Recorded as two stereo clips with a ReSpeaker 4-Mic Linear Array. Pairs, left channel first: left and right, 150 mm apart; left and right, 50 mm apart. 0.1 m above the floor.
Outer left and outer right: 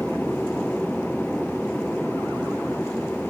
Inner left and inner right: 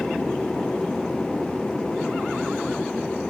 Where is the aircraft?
Centre (ahead or behind); by 3.3 s 5° left (ahead or behind).